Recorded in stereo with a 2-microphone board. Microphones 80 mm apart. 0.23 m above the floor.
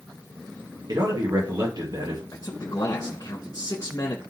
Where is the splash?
I don't hear a splash.